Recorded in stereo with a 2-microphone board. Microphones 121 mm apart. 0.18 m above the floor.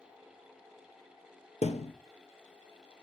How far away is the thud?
About 1.1 m.